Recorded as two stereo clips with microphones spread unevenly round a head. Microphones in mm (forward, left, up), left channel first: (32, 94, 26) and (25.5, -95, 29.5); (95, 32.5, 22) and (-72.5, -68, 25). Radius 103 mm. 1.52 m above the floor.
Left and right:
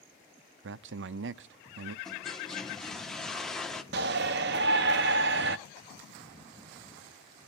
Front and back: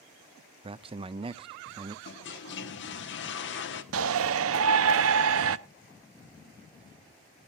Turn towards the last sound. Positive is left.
turn(degrees=-135)